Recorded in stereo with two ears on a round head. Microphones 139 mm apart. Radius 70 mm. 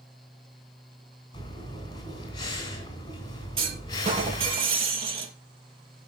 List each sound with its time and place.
1.3 s breathing: 25° left (ahead or behind), 3.5 m
3.6 s a clunk: 35° right (ahead or behind), 4 m